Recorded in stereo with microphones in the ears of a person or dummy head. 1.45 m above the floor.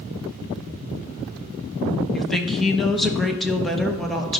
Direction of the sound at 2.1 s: 5° left (ahead or behind).